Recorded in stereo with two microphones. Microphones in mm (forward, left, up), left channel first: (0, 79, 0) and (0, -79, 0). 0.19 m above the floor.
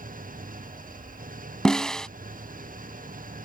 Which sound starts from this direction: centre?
A snare drum, at 1.6 s.